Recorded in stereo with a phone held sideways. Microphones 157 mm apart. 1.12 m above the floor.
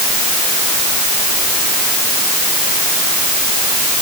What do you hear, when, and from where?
Only background noise.